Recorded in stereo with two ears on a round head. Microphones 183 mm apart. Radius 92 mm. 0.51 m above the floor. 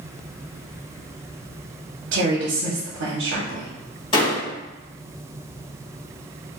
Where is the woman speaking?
50° right (ahead or behind), 1.0 m.